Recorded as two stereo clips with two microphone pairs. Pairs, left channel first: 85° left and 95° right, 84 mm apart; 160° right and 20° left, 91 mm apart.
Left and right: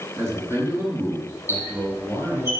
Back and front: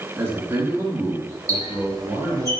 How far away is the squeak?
About 5 m.